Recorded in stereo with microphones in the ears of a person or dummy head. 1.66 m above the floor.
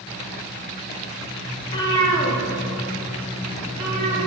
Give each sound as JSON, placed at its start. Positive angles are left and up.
{"t": 1.6, "sound": "a cat meowing", "side_deg": 25, "distance_m": 2.0}